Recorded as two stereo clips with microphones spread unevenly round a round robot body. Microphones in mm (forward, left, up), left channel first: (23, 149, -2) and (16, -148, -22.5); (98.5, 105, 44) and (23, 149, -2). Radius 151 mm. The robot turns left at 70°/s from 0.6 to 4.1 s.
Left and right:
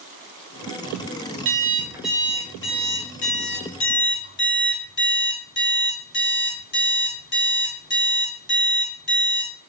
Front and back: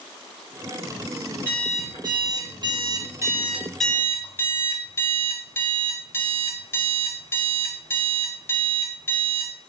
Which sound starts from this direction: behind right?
An alarm clock, at 1.4 s.